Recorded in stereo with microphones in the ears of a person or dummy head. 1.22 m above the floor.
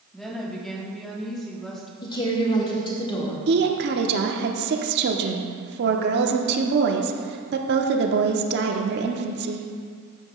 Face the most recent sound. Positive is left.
turn(degrees=-55)  # may be behind; listen again after turning